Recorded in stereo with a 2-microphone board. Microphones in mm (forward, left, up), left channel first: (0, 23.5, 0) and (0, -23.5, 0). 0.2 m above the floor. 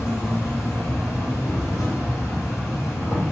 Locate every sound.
0.0 s an insect: 80° left, 1.3 m